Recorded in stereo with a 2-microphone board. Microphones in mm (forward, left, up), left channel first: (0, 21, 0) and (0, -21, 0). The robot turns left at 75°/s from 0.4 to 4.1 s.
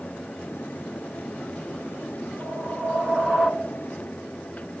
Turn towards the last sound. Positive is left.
turn(degrees=130)